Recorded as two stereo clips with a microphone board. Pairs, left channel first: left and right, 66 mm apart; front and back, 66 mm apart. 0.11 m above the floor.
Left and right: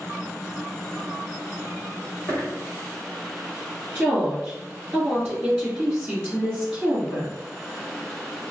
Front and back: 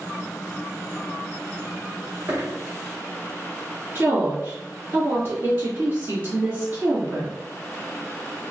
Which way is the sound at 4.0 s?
170° right.